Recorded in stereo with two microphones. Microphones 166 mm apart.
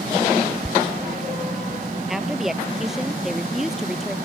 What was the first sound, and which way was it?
A squeak, 5° left (ahead or behind).